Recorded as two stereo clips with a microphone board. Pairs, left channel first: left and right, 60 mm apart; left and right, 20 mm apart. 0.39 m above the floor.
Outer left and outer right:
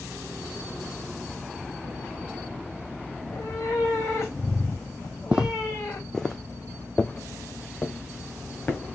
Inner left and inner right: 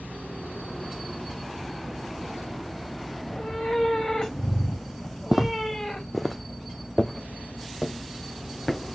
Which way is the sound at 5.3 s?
20° right (ahead or behind).